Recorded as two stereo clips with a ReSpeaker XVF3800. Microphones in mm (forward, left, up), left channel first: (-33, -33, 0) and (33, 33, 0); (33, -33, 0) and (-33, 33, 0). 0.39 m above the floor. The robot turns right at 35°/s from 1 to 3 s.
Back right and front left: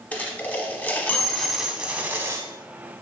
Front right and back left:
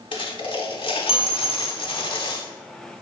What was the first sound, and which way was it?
A dropped coin, 65° right.